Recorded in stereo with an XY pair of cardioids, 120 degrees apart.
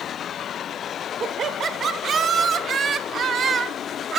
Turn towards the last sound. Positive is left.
turn(degrees=-50)